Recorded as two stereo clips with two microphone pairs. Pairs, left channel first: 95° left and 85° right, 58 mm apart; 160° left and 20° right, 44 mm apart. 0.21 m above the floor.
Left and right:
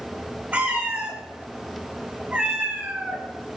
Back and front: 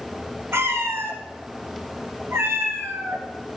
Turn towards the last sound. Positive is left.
turn(degrees=-20)